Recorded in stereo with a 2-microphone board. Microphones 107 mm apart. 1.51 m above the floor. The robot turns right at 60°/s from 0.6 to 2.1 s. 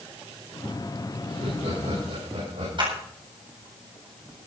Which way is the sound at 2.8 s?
45° right (ahead or behind).